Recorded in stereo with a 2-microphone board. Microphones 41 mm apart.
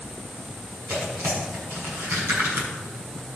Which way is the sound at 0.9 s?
65° right (ahead or behind).